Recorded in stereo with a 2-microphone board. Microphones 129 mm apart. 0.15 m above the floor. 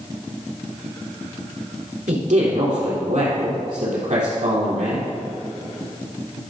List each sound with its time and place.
2.1 s a man speaking: 70° right (ahead or behind), 3.5 m